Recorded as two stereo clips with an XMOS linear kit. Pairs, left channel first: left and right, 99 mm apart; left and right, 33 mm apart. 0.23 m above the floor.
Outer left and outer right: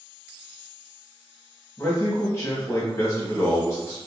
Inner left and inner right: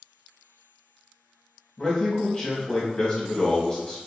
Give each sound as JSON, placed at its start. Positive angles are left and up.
{"t": 1.8, "sound": "a man speaking", "side_deg": 30, "distance_m": 1.2}